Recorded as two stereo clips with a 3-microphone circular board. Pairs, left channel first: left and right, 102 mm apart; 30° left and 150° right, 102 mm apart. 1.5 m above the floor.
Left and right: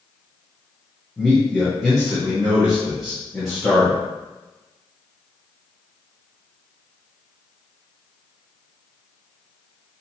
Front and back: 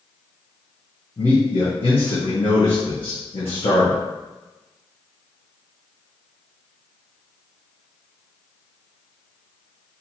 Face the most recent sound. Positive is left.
turn(degrees=5)